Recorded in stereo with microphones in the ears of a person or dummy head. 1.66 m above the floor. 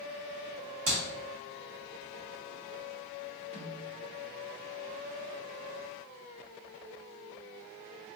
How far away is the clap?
About 2 m.